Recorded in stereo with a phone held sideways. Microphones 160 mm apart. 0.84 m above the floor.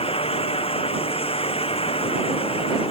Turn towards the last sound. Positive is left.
turn(degrees=35)  # may be behind; listen again after turning